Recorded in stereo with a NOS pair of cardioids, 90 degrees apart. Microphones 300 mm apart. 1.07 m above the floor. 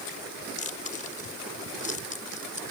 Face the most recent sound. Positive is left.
turn(degrees=25)